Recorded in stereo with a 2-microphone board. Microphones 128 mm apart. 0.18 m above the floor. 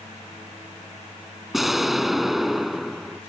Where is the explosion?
Centre (ahead or behind).